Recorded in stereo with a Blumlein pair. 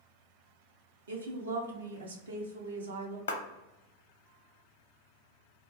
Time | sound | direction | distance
1.1 | a woman speaking | 70° right | 0.7 m
3.3 | a clap | 60° left | 0.6 m